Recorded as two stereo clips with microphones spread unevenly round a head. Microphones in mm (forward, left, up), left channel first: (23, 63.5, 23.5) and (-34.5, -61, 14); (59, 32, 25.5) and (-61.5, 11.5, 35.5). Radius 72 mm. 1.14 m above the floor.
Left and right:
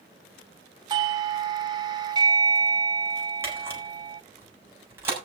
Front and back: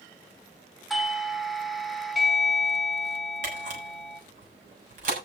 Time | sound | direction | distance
0.9 | a doorbell | 75° right | 0.9 m
3.4 | a camera shutter | 170° left | 7 m